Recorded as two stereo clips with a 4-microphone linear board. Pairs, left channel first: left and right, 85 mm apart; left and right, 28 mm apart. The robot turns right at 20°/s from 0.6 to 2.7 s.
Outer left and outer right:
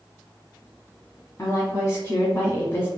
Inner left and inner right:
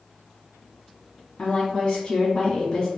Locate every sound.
1.4 s a woman speaking: 35° left (ahead or behind), 1.3 m; by 2.9 s 30° left (ahead or behind), 1.3 m